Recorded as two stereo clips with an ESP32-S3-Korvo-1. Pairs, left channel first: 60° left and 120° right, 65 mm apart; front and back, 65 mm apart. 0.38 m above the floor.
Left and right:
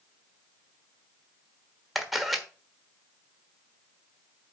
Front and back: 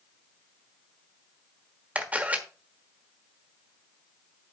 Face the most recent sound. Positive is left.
turn(degrees=150)